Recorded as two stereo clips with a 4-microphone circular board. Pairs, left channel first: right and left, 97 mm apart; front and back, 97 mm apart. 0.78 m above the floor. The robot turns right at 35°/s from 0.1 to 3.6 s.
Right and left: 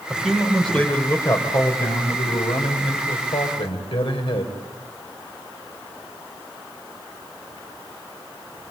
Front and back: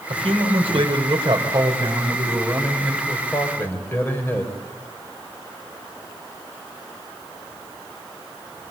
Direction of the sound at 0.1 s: 170° left.